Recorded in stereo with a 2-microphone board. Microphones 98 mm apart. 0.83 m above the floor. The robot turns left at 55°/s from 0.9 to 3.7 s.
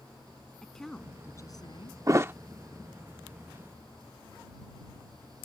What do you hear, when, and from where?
0.6 s a woman speaking: 175° left; by 2.0 s 115° left
2.1 s a thud: 35° right (ahead or behind); by 2.3 s 20° right (ahead or behind)